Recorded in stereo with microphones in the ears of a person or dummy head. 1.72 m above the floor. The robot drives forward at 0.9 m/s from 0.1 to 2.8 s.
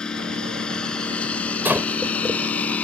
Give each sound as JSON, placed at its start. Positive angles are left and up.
{"t": 0.0, "sound": "a lawn mower", "side_deg": 5}
{"t": 1.6, "sound": "breathing", "side_deg": -10}